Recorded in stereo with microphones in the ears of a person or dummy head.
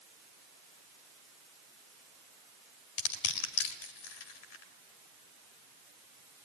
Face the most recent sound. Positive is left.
turn(degrees=85)